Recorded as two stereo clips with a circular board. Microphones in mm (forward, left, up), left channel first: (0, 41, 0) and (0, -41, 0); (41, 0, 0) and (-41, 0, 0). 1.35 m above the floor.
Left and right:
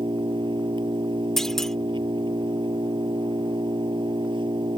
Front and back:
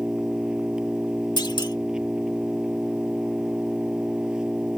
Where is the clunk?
5° left.